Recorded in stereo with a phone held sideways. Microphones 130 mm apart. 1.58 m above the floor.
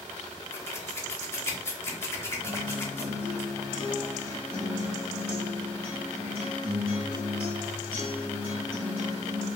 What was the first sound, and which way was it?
Scissors, 20° left (ahead or behind).